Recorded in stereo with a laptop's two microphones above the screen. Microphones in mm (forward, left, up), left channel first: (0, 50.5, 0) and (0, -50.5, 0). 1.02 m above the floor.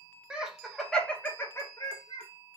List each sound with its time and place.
0.3 s laughter: 10° right (ahead or behind), 1.0 m; by 2.3 s 50° left (ahead or behind), 0.8 m